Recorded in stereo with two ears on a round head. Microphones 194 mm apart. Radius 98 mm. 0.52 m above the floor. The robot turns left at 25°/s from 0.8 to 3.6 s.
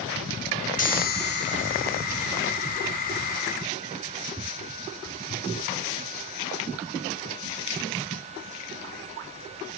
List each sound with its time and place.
0.8 s a chime: 140° left; by 3.4 s 75° left